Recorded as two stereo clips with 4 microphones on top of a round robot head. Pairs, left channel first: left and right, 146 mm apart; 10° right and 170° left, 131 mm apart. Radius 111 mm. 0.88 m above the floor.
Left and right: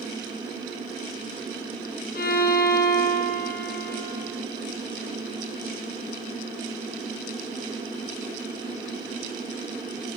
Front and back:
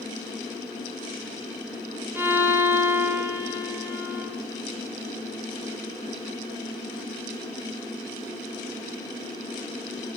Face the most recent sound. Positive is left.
turn(degrees=100)